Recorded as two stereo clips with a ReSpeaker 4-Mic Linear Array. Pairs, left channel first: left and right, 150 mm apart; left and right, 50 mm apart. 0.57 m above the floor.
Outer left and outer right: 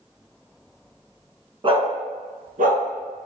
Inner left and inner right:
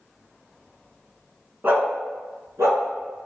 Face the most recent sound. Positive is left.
turn(degrees=-80)